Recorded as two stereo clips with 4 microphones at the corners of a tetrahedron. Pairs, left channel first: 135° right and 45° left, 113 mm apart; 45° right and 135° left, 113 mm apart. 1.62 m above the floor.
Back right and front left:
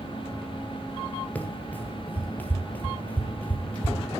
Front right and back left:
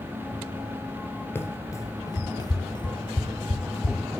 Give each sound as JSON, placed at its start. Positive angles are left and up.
{"t": 1.4, "sound": "running footsteps", "azimuth_deg": -80, "distance_m": 1.7}